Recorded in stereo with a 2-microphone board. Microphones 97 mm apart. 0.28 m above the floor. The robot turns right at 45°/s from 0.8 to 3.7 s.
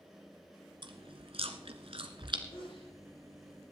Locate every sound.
0.8 s chewing: 55° right (ahead or behind), 1.2 m
2.5 s a sneeze: 60° left (ahead or behind), 6.5 m; by 2.9 s 75° left (ahead or behind), 6.5 m